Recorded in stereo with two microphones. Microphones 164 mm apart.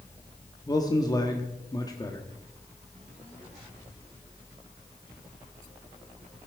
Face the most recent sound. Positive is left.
turn(degrees=25)  # may be behind; listen again after turning